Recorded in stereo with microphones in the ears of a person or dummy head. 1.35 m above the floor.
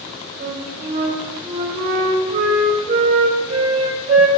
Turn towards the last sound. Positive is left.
turn(degrees=-35)  # may be behind; listen again after turning